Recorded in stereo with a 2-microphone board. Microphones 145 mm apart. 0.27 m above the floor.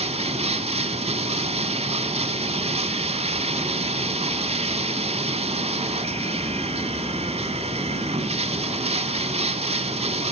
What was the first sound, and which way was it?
Running water, 45° right (ahead or behind).